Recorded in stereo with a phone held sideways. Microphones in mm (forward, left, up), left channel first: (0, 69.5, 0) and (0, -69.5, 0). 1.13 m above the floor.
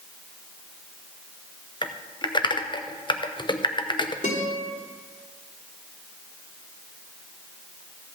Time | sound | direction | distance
1.8 | typing on a keyboard | 35° left (ahead or behind) | 0.7 m
4.2 | a guitar | 70° left (ahead or behind) | 4 m